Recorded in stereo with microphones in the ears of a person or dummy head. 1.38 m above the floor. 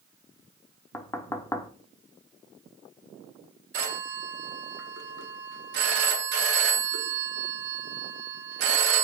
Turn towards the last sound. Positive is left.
turn(degrees=-70)  # may be behind; listen again after turning